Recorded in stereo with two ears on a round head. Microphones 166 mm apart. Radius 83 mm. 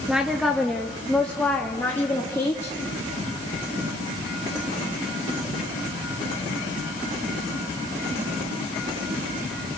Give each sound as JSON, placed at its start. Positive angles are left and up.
{"t": 0.1, "sound": "a woman speaking", "side_deg": -5, "distance_m": 1.7}